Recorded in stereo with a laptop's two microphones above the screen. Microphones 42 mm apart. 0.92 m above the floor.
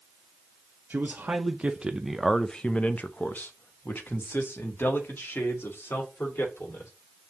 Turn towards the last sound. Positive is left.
turn(degrees=65)  # may be behind; listen again after turning